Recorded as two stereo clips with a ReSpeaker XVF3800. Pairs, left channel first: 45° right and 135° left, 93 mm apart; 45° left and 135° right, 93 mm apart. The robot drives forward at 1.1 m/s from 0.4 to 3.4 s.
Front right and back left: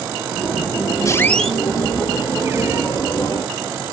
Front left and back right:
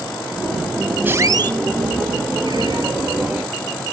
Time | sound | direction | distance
1.1 | a squeak | 75° right | 0.5 m